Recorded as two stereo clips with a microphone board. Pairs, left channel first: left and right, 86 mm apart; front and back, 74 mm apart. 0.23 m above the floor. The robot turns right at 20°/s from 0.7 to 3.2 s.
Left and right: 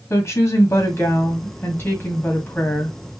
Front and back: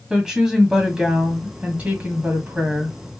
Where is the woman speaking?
105° left, 1.6 m; by 3.0 s 150° left, 1.6 m.